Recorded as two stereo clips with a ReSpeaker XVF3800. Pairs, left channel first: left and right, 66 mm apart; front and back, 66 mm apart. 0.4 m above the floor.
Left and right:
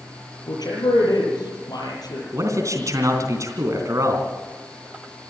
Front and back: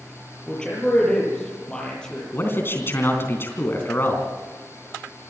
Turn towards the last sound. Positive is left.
turn(degrees=-55)